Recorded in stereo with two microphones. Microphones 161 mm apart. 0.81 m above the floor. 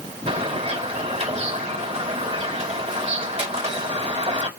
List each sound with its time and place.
0.3 s a bird: 40° right (ahead or behind), 3.5 m